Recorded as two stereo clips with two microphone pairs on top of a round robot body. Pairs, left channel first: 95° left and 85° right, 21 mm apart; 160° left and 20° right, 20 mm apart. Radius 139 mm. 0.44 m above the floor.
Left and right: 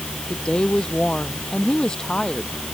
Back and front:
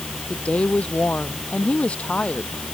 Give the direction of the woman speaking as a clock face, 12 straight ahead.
7 o'clock.